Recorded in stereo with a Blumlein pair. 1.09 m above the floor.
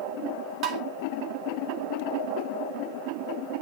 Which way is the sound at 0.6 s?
35° right.